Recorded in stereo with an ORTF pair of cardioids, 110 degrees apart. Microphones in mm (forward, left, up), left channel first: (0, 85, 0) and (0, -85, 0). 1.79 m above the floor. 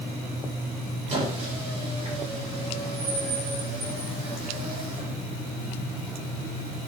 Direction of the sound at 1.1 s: 40° right.